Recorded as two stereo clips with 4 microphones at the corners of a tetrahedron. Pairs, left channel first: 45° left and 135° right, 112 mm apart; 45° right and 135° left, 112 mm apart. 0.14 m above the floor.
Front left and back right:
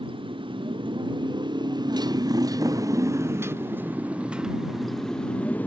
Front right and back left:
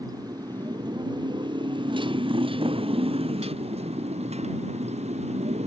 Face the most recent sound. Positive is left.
turn(degrees=120)